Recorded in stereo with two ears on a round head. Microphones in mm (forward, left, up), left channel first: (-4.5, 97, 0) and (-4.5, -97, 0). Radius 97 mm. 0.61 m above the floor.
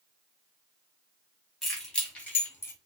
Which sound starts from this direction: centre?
Keys jangling, at 1.6 s.